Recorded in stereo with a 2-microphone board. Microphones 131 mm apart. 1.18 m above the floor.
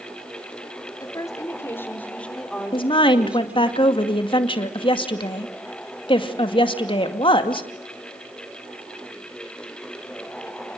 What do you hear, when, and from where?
1.0 s a woman speaking: 30° left (ahead or behind), 4 m; by 3.7 s 15° right (ahead or behind), 4.5 m
2.7 s a woman speaking: 40° left (ahead or behind), 2.5 m